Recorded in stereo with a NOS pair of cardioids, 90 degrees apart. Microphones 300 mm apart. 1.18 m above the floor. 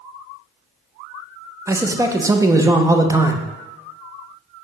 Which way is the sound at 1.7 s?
10° right.